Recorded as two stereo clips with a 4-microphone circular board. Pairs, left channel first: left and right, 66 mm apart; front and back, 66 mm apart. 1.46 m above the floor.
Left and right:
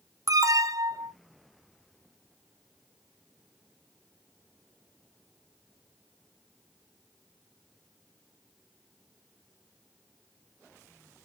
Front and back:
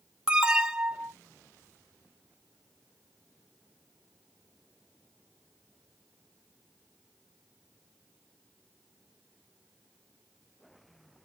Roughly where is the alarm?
Right.